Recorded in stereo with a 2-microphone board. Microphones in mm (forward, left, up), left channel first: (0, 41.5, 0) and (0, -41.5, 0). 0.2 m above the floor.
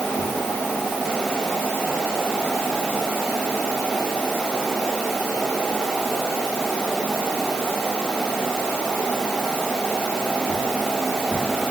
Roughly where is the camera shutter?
I don't hear a camera shutter.